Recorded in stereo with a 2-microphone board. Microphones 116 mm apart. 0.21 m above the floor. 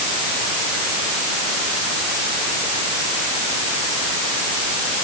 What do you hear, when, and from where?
Only background noise.